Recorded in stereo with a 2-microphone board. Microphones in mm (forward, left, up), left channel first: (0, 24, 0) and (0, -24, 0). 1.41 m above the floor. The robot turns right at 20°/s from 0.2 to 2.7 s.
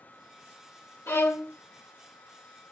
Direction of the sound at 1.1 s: 60° left (ahead or behind).